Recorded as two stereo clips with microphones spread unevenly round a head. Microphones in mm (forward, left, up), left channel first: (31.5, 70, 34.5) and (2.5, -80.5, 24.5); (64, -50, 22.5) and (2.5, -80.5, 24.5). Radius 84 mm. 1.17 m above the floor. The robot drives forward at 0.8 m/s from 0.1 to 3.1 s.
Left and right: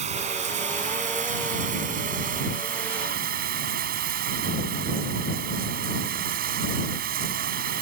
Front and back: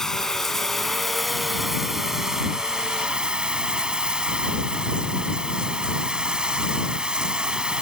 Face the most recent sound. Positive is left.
turn(degrees=-80)